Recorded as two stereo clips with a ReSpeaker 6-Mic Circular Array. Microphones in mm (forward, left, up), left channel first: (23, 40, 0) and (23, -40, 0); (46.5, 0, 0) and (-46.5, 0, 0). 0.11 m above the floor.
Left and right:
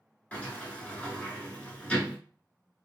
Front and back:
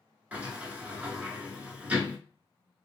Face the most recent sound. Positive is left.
turn(degrees=135)